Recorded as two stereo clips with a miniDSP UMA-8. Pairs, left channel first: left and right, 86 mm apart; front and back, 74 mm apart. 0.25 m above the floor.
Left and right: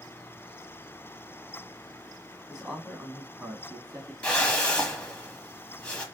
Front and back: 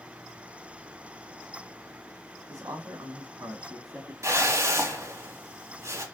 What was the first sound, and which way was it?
A man speaking, 170° right.